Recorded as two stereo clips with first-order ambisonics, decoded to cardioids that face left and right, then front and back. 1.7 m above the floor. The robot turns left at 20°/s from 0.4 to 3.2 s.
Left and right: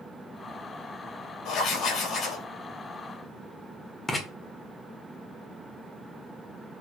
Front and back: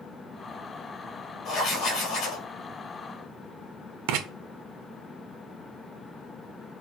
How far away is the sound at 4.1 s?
About 1.4 m.